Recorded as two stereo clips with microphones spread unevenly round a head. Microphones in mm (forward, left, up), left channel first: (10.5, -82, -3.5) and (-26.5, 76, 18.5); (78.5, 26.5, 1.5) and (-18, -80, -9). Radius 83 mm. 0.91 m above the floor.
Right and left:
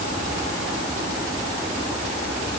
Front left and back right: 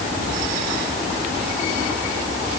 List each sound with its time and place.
Only background noise.